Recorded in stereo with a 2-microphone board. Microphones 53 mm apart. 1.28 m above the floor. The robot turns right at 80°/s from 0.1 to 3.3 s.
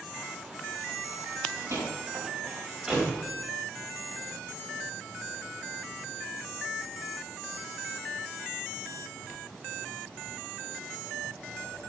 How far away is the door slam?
About 4.5 m.